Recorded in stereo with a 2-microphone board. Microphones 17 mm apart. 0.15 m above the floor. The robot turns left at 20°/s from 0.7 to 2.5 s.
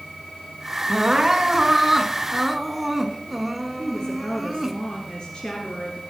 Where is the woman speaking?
55° left (ahead or behind), 2.5 m.